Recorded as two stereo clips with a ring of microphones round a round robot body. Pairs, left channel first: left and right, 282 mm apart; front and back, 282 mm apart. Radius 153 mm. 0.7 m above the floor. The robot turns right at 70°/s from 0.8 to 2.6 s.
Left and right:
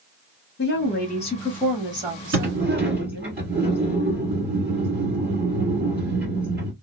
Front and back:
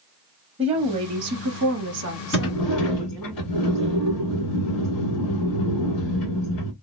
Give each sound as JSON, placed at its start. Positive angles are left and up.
{"t": 0.6, "sound": "a woman speaking", "azimuth_deg": 120, "distance_m": 0.9}
{"t": 2.3, "sound": "a sliding door", "azimuth_deg": -35, "distance_m": 1.5}